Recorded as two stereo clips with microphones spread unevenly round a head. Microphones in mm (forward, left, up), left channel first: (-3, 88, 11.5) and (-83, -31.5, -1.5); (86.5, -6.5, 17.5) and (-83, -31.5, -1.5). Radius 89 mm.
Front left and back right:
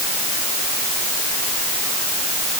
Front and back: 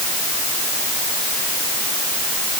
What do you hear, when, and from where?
Only background noise.